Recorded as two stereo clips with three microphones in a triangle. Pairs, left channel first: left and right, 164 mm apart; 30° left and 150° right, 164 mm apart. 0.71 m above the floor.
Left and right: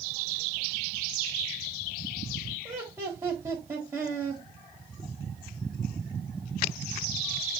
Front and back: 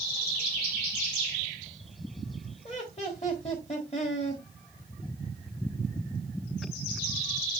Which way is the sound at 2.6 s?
20° right.